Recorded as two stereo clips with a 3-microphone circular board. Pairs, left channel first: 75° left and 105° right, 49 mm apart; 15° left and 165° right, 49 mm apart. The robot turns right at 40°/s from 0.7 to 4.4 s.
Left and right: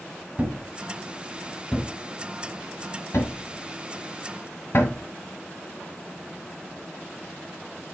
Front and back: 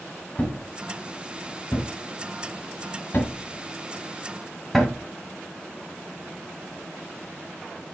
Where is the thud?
45° right, 1.7 m; by 5.0 s 105° left, 1.7 m.